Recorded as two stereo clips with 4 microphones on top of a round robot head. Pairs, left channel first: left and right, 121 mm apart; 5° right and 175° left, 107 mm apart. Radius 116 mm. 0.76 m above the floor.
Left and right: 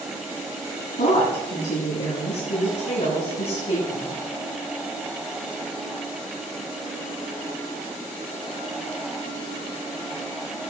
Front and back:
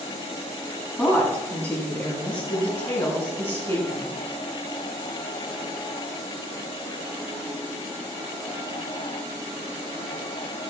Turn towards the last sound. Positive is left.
turn(degrees=55)